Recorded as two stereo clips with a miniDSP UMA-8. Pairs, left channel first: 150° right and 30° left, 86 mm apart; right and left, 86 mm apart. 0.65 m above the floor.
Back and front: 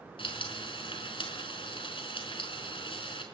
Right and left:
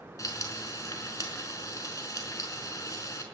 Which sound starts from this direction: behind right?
Frying, at 0.2 s.